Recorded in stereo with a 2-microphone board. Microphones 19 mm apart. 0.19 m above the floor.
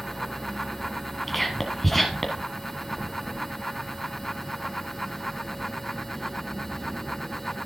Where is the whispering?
10° left (ahead or behind), 1.3 m.